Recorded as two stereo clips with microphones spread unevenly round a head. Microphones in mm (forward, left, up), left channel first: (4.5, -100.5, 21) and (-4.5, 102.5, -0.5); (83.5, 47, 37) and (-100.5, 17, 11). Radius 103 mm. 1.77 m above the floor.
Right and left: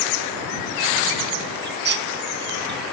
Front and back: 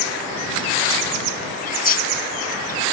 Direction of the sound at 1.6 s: 50° left.